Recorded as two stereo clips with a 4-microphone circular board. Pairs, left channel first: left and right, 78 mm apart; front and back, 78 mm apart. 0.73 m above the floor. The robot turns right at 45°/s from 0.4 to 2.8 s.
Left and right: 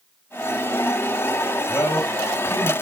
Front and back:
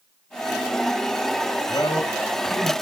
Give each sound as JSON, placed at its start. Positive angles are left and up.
{"t": 1.7, "sound": "a man speaking", "azimuth_deg": 30, "distance_m": 8.0}